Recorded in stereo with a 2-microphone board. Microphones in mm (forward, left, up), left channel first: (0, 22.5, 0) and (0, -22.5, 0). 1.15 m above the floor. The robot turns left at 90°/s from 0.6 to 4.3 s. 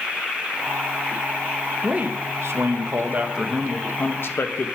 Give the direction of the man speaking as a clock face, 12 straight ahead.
1 o'clock.